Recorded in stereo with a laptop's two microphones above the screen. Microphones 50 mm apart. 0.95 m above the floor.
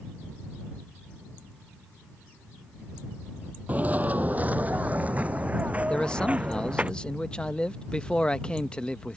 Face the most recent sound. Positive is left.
turn(degrees=20)  # may be behind; listen again after turning